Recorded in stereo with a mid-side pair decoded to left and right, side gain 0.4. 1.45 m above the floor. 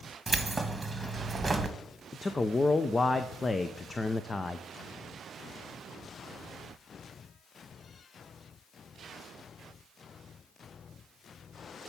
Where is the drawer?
No drawer in this recording.